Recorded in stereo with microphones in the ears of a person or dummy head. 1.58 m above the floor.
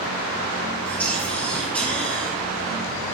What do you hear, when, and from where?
0.8 s whispering: 10° left (ahead or behind), 1.1 m